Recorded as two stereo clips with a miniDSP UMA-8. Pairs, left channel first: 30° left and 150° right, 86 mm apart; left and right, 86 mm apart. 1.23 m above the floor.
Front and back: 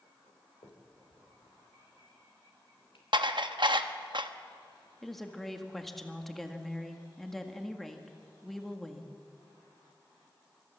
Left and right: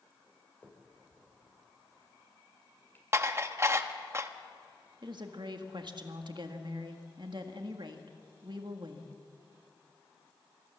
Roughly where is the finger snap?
Ahead.